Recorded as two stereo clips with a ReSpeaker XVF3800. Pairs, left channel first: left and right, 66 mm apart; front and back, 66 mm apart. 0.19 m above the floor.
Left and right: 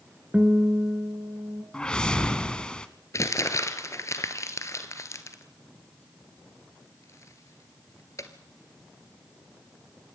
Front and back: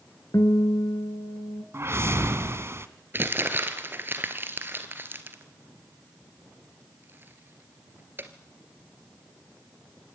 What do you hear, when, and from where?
0.3 s a guitar: 20° right, 1.6 m
1.7 s a whoosh: 160° left, 1.1 m
3.1 s crumpling: 125° left, 1.6 m